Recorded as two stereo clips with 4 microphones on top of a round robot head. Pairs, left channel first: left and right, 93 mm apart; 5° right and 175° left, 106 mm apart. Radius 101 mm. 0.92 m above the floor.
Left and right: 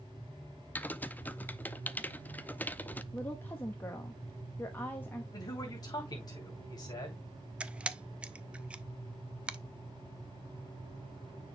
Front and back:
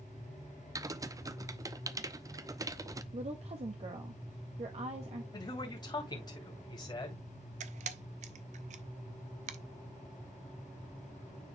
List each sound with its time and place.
0.8 s typing on a keyboard: 150° left, 0.7 m
3.1 s a woman speaking: 160° left, 1.1 m
5.3 s a man speaking: 40° left, 2.5 m
7.6 s a camera shutter: 170° right, 0.6 m